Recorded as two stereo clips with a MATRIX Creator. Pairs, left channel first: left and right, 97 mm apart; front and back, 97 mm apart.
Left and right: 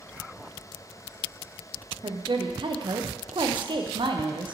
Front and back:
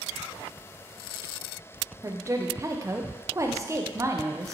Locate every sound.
2.0 s a woman speaking: 120° right, 0.7 m